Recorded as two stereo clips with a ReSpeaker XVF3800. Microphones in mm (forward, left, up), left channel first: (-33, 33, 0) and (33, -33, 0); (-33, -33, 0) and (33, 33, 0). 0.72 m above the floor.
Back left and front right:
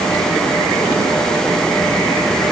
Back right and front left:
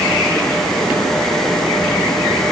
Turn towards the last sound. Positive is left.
No sound to turn to.